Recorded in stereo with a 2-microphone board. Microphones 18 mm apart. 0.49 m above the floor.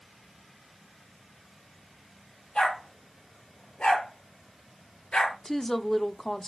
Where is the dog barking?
70° left (ahead or behind), 5.5 m.